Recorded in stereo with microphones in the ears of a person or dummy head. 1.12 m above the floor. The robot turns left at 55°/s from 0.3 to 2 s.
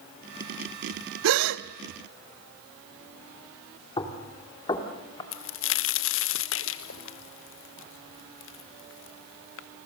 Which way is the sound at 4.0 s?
30° left (ahead or behind).